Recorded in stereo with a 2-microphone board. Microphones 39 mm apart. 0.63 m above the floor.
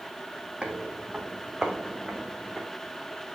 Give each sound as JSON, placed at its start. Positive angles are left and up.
{"t": 0.6, "sound": "footsteps", "side_deg": -35, "distance_m": 1.5}